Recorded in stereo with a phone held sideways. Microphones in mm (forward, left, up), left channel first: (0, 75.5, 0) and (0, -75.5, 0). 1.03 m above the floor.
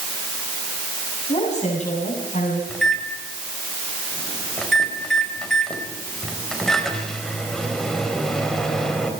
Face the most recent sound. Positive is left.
turn(degrees=5)  # may be behind; listen again after turning